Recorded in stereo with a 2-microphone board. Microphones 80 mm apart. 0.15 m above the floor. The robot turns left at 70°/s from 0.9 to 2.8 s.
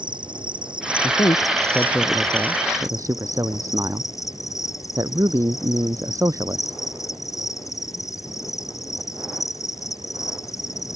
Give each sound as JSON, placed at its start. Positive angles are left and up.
{"t": 0.0, "sound": "an insect", "azimuth_deg": -90}
{"t": 1.0, "sound": "a man speaking", "azimuth_deg": 80}